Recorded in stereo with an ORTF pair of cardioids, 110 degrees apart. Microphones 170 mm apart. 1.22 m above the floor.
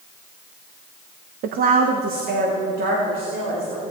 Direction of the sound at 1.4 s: 60° right.